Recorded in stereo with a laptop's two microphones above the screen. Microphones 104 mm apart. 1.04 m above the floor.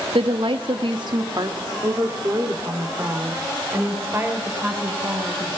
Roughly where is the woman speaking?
Right.